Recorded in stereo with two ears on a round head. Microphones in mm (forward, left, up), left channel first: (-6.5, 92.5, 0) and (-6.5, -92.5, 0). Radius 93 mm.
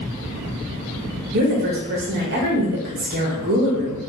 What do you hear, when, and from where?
1.3 s a woman speaking: 45° right (ahead or behind), 0.8 m